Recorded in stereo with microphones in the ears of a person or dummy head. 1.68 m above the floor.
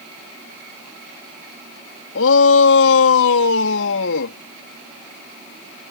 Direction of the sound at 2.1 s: 75° left (ahead or behind).